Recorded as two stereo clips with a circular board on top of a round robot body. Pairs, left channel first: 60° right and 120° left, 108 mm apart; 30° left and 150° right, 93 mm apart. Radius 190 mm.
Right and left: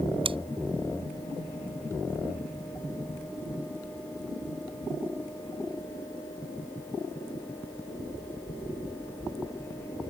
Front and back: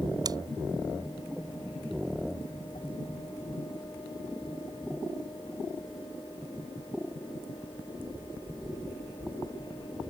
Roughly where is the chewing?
Behind.